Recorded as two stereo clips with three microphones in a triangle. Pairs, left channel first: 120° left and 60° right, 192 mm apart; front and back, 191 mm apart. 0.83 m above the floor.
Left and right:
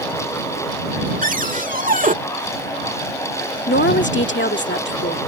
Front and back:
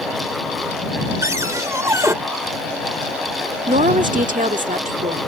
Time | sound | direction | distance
1.2 | a cupboard door | 105° right | ?
3.7 | a woman speaking | 135° left | ?